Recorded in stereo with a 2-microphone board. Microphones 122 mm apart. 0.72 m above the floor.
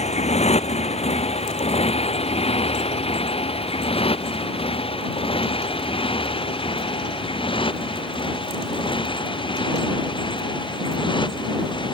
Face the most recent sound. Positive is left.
turn(degrees=40)  # may be behind; listen again after turning